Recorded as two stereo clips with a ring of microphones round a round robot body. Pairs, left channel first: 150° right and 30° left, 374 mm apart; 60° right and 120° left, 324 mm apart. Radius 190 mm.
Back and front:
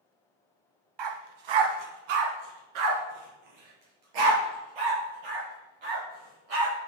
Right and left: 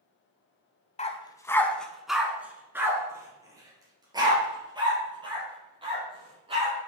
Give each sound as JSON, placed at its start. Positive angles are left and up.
{"t": 1.0, "sound": "a dog barking", "azimuth_deg": 10, "distance_m": 1.0}